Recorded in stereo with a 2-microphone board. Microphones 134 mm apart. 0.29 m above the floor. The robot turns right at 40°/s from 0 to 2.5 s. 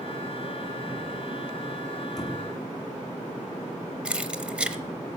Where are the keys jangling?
5° right (ahead or behind), 0.7 m.